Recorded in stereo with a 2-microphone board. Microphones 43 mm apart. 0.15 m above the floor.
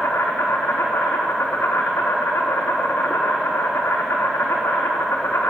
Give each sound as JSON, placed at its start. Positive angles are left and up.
{"t": 0.0, "sound": "an insect", "side_deg": 85, "distance_m": 2.0}